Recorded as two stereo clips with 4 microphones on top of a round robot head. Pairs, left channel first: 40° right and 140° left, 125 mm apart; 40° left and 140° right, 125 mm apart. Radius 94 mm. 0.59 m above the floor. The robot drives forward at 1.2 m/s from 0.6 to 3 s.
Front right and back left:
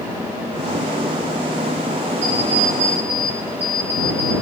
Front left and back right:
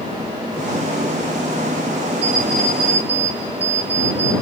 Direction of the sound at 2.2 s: Straight behind.